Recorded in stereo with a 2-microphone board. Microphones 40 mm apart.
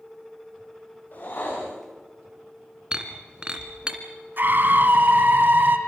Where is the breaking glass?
25° right (ahead or behind), 2 m.